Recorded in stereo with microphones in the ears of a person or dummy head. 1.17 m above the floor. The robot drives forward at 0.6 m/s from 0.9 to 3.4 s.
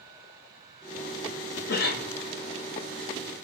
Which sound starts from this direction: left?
A cough, at 1.7 s.